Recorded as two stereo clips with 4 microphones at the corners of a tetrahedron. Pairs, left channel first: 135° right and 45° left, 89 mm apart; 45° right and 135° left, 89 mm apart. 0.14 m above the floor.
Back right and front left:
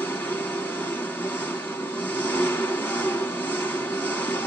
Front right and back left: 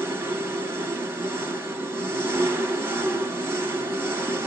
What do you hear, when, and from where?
0.0 s an engine running: 170° left, 1.1 m